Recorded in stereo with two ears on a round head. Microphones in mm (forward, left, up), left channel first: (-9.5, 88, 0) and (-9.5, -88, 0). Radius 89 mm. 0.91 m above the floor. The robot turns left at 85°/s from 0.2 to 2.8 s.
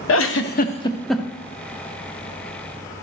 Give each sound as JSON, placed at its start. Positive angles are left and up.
{"t": 0.1, "sound": "a giggle", "side_deg": 70, "distance_m": 0.7}